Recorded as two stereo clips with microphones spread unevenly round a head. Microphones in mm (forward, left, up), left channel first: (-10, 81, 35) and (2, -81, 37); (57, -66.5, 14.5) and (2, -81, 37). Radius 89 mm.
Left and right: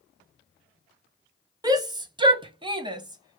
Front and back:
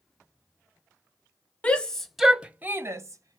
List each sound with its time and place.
1.6 s a shout: 25° right, 1.1 m; by 3.4 s 150° right, 1.0 m